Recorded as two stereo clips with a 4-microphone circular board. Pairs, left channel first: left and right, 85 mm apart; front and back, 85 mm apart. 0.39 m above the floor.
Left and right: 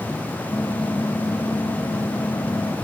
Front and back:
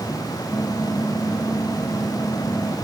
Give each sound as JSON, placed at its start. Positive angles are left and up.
{"t": 0.5, "sound": "typing on a keyboard", "azimuth_deg": 55}